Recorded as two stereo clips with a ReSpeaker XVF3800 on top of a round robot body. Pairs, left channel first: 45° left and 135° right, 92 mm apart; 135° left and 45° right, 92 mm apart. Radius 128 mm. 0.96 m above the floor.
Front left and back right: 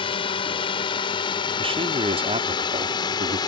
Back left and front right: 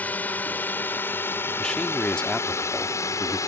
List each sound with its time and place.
0.0 s a drone: 60° left; by 3.5 s 80° left
1.6 s a man speaking: 145° right